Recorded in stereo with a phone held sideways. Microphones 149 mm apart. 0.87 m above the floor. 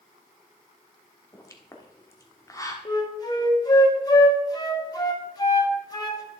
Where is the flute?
25° left (ahead or behind), 1.4 m.